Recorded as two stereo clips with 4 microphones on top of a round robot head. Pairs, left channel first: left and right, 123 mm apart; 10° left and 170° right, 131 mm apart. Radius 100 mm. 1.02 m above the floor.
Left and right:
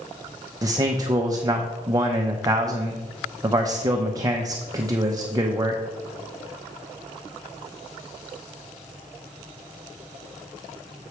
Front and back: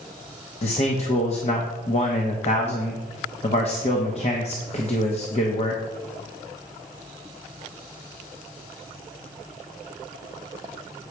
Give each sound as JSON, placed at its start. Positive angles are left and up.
{"t": 0.6, "sound": "a man speaking", "azimuth_deg": -30, "distance_m": 1.0}